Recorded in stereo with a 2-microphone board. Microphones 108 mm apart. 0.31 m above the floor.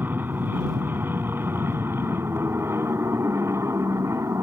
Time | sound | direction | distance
0.0 | an aircraft | 15° right (ahead or behind) | ?